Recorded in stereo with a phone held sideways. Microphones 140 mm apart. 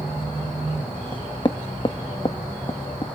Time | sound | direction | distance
1.1 | knocking | 35° left (ahead or behind) | 1.2 m